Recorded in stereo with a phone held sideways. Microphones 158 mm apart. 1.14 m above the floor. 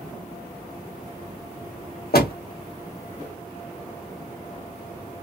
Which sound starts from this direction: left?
A door slam, at 2.1 s.